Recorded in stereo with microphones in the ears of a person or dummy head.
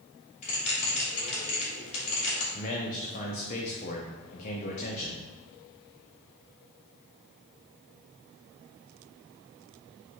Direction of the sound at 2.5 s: 40° left (ahead or behind).